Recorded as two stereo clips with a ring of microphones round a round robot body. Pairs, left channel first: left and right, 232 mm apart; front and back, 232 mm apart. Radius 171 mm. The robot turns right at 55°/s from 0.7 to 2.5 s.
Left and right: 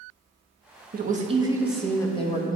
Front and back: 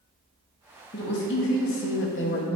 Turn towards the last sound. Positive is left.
turn(degrees=40)